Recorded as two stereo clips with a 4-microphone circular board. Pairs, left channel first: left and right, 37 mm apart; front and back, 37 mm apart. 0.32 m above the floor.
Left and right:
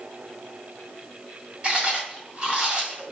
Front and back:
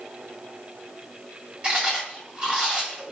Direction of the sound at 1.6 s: 140° right.